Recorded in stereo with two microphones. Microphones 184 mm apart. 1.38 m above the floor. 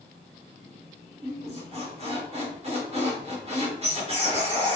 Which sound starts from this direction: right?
A squeak, at 1.2 s.